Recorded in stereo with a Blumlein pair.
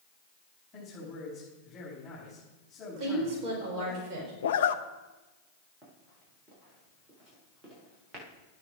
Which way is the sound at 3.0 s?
35° right.